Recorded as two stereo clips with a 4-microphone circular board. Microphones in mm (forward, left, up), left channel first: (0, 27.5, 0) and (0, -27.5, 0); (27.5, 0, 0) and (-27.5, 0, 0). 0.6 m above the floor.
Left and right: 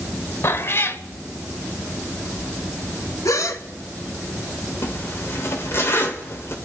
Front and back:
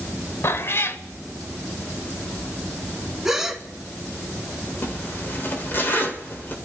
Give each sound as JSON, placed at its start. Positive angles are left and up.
{"t": 0.4, "sound": "a cat meowing", "azimuth_deg": 45, "distance_m": 0.8}
{"t": 3.2, "sound": "a gasp", "azimuth_deg": 95, "distance_m": 1.1}
{"t": 4.8, "sound": "a zipper", "azimuth_deg": 50, "distance_m": 1.9}